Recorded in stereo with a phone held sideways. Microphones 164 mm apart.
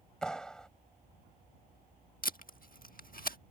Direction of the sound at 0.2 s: 5° left (ahead or behind).